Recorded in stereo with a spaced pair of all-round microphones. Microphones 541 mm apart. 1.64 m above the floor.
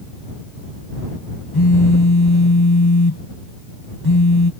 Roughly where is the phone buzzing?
Left.